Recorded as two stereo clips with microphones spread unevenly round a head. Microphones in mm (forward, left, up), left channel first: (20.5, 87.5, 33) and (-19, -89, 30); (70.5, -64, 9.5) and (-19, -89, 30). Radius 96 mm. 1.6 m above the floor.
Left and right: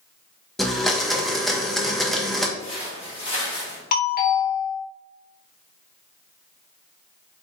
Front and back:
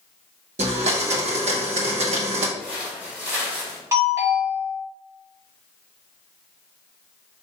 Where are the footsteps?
110° left, 1.8 m; by 3.8 s 135° left, 2.5 m.